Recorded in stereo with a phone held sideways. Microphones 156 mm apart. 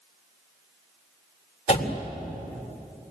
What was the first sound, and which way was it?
A door slam, 45° left (ahead or behind).